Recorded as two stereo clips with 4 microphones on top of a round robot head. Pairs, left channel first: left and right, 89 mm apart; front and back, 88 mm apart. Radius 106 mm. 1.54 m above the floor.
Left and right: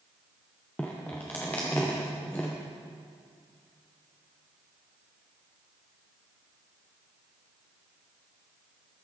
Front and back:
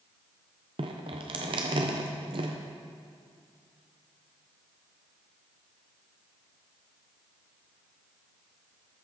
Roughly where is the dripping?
Behind.